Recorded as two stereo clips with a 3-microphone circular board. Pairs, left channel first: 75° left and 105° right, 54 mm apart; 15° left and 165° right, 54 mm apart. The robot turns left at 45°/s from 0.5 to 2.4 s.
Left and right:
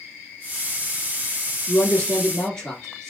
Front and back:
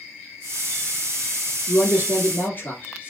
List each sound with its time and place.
1.7 s a man speaking: 40° left, 1.3 m; by 3.1 s 5° left, 1.3 m